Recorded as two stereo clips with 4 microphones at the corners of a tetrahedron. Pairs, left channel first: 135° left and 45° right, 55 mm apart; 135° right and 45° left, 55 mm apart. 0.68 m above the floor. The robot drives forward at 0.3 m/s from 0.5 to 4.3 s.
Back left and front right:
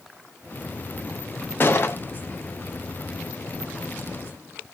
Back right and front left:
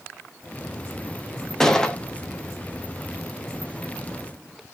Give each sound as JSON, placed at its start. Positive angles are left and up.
{"t": 1.6, "sound": "a gunshot", "azimuth_deg": 150, "distance_m": 0.5}